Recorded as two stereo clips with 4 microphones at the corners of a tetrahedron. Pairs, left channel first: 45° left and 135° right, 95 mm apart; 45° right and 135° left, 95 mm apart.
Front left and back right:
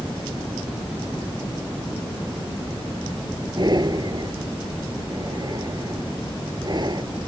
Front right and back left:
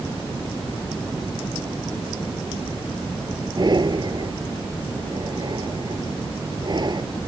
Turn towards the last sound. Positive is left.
turn(degrees=180)